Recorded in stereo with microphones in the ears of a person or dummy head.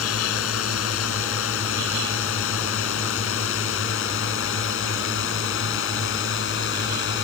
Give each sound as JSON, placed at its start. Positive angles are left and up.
{"t": 0.0, "sound": "a drone", "side_deg": 75}